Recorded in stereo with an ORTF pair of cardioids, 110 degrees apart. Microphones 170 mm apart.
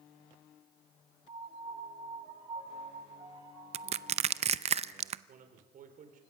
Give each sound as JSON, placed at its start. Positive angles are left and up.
{"t": 1.3, "sound": "a piano", "azimuth_deg": -30, "distance_m": 7.0}
{"t": 3.7, "sound": "crushing", "azimuth_deg": -40, "distance_m": 0.5}
{"t": 5.3, "sound": "a man speaking", "azimuth_deg": -55, "distance_m": 3.5}